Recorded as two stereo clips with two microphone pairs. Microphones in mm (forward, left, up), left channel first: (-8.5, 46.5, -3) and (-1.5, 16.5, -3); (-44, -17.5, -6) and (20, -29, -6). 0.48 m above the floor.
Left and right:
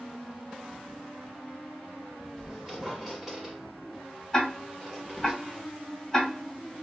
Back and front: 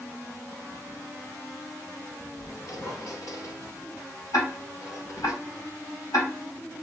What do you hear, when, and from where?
2.4 s a squeak: 155° right, 1.1 m
4.3 s ticking: 170° left, 1.7 m